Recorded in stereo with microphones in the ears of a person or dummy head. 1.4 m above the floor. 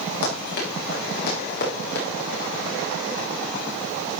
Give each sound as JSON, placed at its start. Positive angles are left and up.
{"t": 0.2, "sound": "running footsteps", "side_deg": 60, "distance_m": 5.0}